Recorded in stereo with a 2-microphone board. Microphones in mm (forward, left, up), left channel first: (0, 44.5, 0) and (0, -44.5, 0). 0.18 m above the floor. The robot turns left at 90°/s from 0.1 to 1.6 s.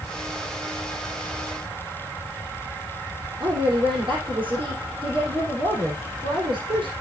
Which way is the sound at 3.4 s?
65° right (ahead or behind).